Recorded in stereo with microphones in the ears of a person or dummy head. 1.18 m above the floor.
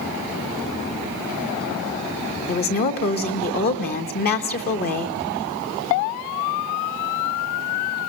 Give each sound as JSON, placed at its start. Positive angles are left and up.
{"t": 2.5, "sound": "a woman speaking", "side_deg": 50, "distance_m": 1.3}